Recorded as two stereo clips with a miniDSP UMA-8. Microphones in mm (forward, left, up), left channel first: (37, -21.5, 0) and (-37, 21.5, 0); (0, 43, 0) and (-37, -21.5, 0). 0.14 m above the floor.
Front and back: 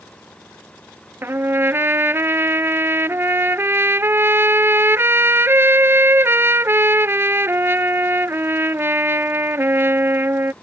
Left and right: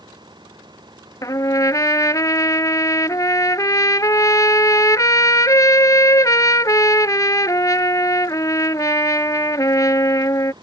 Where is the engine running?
105° right.